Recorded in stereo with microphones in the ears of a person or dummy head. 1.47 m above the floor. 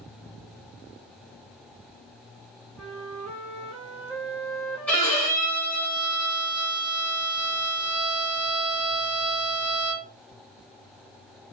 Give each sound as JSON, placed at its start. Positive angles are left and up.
{"t": 2.8, "sound": "a flute", "side_deg": -5, "distance_m": 0.9}
{"t": 4.9, "sound": "a violin", "side_deg": 5, "distance_m": 1.0}